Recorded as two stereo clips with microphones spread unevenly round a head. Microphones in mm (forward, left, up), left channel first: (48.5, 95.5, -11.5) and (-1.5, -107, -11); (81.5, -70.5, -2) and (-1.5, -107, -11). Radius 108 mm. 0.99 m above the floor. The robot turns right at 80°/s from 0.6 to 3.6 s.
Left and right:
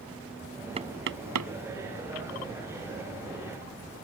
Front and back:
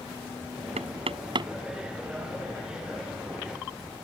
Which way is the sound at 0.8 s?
170° right.